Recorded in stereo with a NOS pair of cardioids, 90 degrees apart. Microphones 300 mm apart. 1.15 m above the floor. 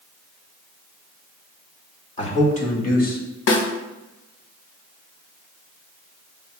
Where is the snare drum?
50° left, 1.2 m.